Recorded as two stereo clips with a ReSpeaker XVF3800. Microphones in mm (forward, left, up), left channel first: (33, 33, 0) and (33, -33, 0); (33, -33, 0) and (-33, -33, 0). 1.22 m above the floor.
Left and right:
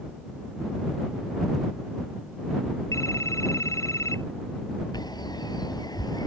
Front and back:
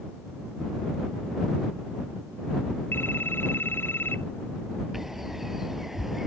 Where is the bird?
95° left.